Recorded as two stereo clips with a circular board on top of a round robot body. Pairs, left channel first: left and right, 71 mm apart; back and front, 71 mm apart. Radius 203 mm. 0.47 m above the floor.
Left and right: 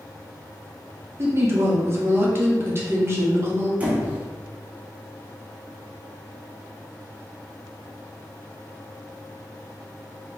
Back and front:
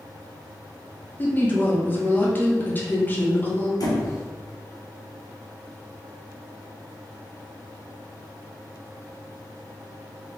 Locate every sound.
1.2 s a woman speaking: 125° right, 1.6 m
3.8 s a squeak: 160° right, 1.2 m